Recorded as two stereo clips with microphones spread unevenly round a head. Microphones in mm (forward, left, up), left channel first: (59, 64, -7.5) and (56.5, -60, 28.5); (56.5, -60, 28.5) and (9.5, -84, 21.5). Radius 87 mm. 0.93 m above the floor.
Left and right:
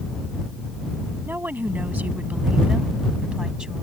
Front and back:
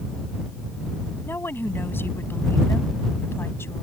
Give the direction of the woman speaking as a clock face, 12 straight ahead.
1 o'clock.